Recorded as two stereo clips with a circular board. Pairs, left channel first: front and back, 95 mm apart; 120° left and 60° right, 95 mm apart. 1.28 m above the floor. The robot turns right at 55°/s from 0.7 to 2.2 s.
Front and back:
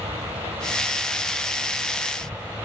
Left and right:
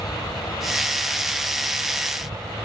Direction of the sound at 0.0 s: 170° left.